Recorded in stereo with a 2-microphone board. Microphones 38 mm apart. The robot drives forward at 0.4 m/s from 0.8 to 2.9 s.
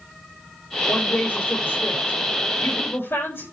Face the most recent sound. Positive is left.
turn(degrees=75)  # may be behind; listen again after turning